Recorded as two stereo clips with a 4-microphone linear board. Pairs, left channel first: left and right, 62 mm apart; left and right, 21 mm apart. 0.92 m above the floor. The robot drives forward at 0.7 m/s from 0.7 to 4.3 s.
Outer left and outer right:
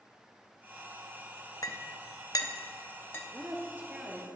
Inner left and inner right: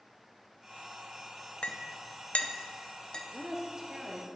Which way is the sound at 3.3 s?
35° right (ahead or behind).